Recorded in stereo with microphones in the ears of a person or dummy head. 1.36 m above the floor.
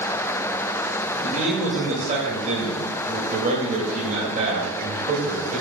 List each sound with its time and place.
1.2 s a man speaking: 40° right (ahead or behind), 2.5 m